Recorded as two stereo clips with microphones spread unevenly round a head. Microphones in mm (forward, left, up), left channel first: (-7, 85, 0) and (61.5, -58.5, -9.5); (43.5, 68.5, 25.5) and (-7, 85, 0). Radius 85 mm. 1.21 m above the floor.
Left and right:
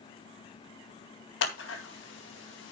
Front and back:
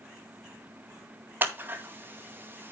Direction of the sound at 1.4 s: 120° left.